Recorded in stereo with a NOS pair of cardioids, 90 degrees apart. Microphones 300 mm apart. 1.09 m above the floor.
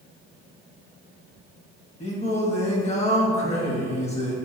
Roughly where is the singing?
Ahead.